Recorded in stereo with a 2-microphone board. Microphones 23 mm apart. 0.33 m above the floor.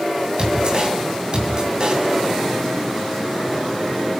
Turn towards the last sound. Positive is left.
turn(degrees=-40)  # may be behind; listen again after turning